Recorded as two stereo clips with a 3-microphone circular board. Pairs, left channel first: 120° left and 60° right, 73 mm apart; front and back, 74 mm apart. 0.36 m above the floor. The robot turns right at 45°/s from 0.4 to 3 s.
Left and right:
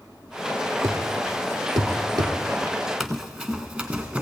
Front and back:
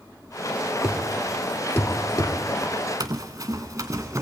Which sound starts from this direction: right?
A thud, at 0.8 s.